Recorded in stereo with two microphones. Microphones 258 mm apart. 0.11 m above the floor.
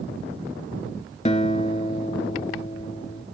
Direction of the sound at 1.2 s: 25° left (ahead or behind).